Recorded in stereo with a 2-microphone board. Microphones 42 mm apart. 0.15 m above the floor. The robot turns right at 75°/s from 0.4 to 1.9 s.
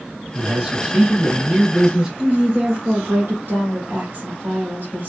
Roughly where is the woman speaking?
Right.